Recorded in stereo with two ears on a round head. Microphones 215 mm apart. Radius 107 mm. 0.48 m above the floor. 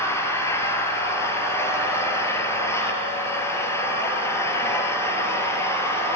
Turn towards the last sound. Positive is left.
turn(degrees=10)  # may be behind; listen again after turning